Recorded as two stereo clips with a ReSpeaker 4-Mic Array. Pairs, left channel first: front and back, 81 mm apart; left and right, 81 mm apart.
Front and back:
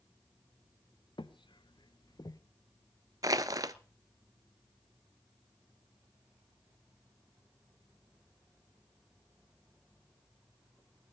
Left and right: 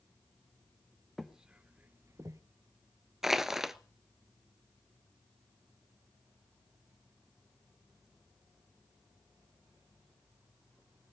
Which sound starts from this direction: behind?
Crushing, at 3.2 s.